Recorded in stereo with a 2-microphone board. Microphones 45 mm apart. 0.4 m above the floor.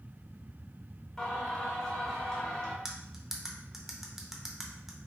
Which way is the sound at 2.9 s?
10° right (ahead or behind).